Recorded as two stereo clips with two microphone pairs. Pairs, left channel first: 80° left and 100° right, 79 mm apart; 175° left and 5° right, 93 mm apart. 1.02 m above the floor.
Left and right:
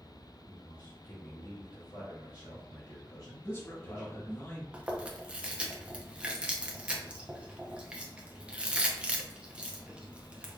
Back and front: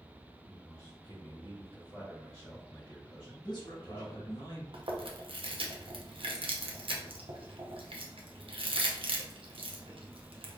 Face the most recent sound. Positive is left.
turn(degrees=-25)